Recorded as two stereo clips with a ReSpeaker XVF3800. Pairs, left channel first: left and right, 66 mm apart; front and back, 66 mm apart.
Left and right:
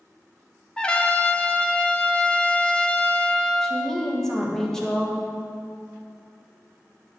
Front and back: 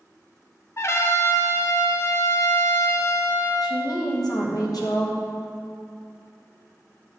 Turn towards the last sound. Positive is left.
turn(degrees=10)